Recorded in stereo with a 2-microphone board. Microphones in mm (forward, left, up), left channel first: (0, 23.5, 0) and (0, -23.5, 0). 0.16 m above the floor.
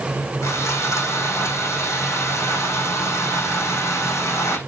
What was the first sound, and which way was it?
Sawing, 80° left.